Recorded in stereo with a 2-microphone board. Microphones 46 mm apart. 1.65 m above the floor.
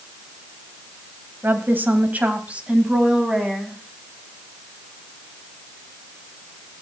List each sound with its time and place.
1.4 s a woman speaking: 55° right (ahead or behind), 2 m; by 3.8 s 15° right (ahead or behind), 3.5 m